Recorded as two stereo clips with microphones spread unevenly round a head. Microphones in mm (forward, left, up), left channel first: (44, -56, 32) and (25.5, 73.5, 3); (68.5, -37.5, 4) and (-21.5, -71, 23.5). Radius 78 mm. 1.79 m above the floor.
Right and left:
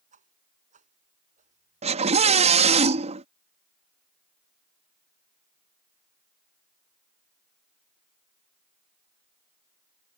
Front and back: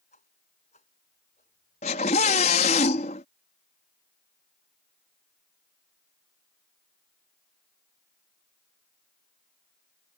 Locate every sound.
0.1 s a whoosh: 65° left
1.8 s a scream: 55° left